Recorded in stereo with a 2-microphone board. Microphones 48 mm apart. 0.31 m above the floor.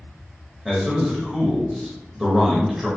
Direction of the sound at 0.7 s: 5° right (ahead or behind).